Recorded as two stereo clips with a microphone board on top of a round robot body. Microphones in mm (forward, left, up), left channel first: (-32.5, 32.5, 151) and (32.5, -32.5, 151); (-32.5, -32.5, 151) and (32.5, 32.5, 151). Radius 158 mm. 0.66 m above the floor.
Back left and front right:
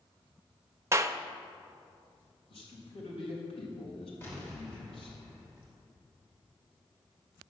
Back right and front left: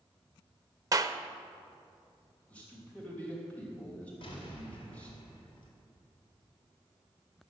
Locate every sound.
0.9 s a clap: 5° left, 0.7 m
2.5 s a man speaking: 150° left, 3.5 m
4.2 s an explosion: 155° right, 2.5 m